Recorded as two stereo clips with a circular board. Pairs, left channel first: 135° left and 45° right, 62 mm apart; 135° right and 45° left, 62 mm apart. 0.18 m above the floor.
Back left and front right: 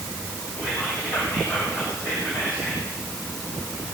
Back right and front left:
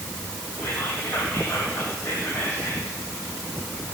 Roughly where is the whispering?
Behind.